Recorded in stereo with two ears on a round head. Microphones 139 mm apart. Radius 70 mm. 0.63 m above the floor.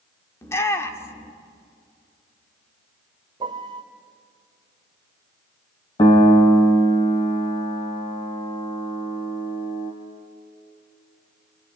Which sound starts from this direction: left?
A piano, at 6.0 s.